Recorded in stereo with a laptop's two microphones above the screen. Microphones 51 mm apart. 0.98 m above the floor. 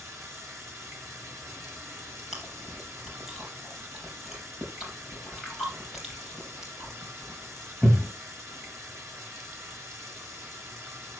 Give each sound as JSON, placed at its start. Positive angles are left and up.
{"t": 0.0, "sound": "running water", "side_deg": -65, "distance_m": 3.5}
{"t": 2.3, "sound": "chewing", "side_deg": -5, "distance_m": 4.5}